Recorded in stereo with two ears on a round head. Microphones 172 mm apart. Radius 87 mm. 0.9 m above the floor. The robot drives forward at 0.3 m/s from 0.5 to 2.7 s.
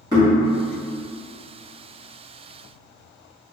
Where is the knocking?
20° right (ahead or behind), 1.4 m.